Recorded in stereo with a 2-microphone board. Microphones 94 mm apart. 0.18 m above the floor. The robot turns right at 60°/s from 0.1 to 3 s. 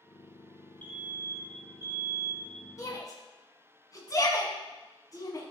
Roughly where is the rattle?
I don't hear a rattle.